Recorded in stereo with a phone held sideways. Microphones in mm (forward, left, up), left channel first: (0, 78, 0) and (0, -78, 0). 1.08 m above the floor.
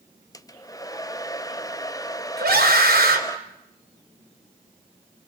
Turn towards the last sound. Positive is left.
turn(degrees=-85)